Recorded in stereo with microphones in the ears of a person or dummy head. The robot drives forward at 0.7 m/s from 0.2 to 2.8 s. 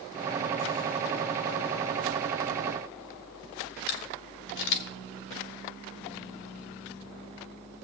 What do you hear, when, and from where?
3.9 s a camera shutter: 50° left (ahead or behind), 1.1 m